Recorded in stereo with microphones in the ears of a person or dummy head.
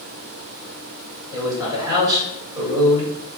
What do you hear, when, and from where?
1.3 s a man speaking: 20° right (ahead or behind), 1.7 m